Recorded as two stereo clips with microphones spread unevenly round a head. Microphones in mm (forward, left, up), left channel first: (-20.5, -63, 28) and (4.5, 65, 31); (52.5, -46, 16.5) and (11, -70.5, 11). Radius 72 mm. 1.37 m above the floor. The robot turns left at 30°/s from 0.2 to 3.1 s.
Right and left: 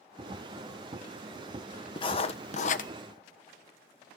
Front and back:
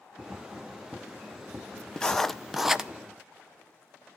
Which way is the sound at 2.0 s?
45° right.